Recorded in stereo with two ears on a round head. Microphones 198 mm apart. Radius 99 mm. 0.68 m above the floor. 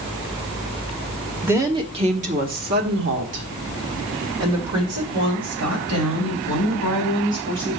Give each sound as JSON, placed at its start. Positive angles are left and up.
{"t": 1.4, "sound": "a woman speaking", "side_deg": -10, "distance_m": 1.0}